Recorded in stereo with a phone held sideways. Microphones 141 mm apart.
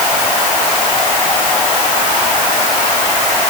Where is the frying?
No frying in this recording.